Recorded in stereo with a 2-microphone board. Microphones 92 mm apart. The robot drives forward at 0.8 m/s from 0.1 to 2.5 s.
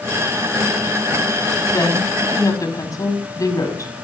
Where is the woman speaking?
35° left (ahead or behind), 5.5 m; by 3.9 s 40° left (ahead or behind), 5 m.